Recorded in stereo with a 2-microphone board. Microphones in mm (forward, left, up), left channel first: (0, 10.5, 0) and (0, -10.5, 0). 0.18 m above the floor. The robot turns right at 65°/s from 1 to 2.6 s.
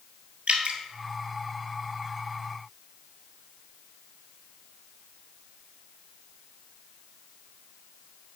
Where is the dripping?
60° right (ahead or behind), 1.1 m.